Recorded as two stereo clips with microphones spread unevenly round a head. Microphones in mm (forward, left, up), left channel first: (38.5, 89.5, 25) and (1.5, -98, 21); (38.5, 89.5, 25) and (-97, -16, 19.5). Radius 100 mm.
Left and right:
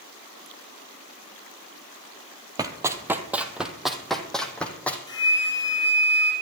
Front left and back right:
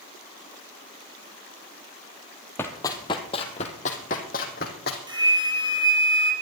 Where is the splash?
No splash in this recording.